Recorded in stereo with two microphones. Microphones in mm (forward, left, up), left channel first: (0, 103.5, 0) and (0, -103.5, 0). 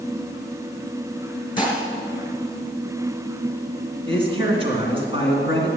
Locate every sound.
1.6 s dishes clattering: 20° left (ahead or behind), 2.5 m
4.1 s a man speaking: 25° right (ahead or behind), 2.5 m